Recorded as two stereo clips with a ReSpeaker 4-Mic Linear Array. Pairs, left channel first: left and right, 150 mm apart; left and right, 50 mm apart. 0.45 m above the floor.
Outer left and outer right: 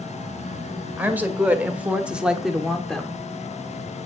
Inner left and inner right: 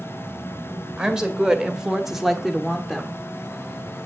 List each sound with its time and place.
1.0 s a woman speaking: 10° right (ahead or behind), 1.9 m; by 3.2 s 5° left (ahead or behind), 1.3 m